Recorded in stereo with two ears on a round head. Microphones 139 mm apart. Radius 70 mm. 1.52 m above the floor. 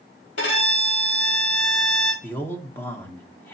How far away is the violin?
About 3.5 m.